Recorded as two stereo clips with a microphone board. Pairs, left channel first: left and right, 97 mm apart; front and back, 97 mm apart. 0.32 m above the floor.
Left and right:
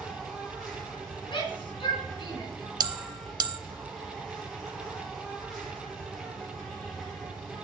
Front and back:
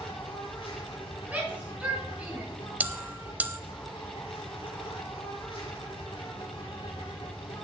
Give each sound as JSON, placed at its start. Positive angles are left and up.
{"t": 0.0, "sound": "an insect", "azimuth_deg": 0, "distance_m": 4.5}
{"t": 1.3, "sound": "a shout", "azimuth_deg": 105, "distance_m": 4.0}
{"t": 2.8, "sound": "a bell", "azimuth_deg": -110, "distance_m": 0.6}